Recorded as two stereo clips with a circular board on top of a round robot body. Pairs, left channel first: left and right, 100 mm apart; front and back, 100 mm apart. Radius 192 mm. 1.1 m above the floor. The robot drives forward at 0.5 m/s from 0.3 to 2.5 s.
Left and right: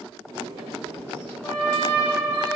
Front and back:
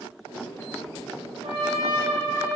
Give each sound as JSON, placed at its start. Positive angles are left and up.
{"t": 1.4, "sound": "a trumpet", "azimuth_deg": 160, "distance_m": 0.9}